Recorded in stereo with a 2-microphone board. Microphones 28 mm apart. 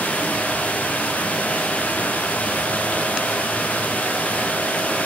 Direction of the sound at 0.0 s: 75° left (ahead or behind).